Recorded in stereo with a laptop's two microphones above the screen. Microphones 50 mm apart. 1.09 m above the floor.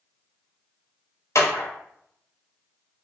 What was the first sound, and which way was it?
A clap, 80° left.